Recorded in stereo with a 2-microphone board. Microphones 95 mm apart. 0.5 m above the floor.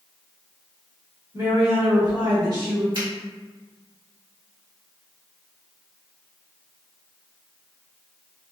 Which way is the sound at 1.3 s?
45° right (ahead or behind).